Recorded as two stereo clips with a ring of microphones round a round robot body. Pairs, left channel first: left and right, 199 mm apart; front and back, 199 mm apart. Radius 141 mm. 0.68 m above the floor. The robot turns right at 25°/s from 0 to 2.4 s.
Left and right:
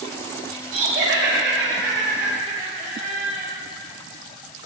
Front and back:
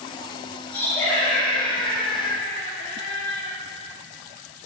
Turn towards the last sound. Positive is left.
turn(degrees=-45)